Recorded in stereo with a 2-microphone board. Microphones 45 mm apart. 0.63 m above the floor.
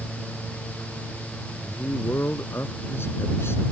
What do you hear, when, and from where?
1.6 s a man speaking: 65° left (ahead or behind)